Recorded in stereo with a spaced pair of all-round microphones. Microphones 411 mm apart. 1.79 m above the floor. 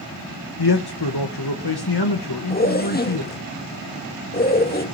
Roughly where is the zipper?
Left.